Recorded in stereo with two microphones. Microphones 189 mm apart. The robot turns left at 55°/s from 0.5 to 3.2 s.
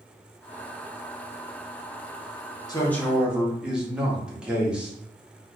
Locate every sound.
2.7 s a man speaking: 20° left (ahead or behind), 1.0 m; by 4.9 s 5° right (ahead or behind), 1.0 m